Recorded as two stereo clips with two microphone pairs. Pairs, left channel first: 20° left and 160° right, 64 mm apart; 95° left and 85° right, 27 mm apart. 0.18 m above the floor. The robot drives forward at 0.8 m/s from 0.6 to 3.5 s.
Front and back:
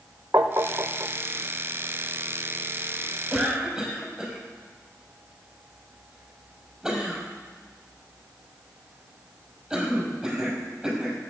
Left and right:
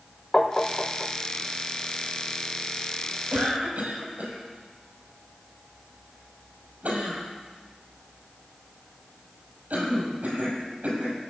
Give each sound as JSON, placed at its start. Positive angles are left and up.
{"t": 0.3, "sound": "tapping", "azimuth_deg": 155, "distance_m": 1.3}
{"t": 3.3, "sound": "a cough", "azimuth_deg": -75, "distance_m": 5.5}